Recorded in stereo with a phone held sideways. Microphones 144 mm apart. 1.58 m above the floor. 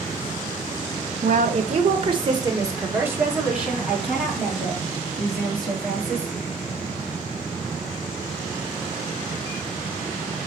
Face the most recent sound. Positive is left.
turn(degrees=5)  # may be behind; listen again after turning